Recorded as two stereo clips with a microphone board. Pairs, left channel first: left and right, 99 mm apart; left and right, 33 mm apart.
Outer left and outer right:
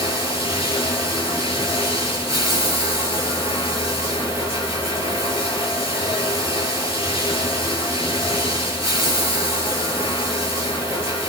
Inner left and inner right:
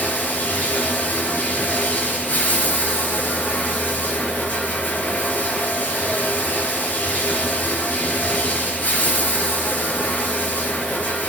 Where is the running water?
75° left (ahead or behind), 4.5 m.